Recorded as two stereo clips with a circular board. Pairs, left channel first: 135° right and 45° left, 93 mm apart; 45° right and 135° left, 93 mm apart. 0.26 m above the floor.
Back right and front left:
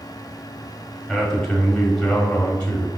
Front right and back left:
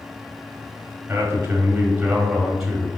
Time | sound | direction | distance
1.1 | a man speaking | 130° left | 1.5 m